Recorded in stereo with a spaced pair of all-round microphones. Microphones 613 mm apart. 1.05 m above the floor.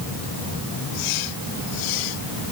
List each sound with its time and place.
Only background noise.